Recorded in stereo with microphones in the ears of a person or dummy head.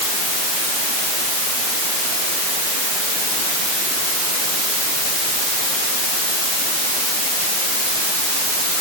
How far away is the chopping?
No chopping in this recording.